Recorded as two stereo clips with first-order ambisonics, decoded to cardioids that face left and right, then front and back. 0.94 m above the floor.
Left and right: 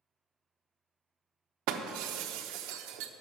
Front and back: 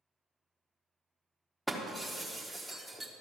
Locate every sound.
1.7 s breaking glass: 90° right, 0.9 m